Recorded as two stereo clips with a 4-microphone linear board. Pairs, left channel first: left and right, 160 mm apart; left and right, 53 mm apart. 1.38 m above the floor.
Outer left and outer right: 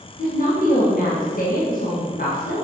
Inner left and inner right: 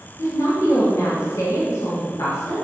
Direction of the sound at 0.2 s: 60° left (ahead or behind).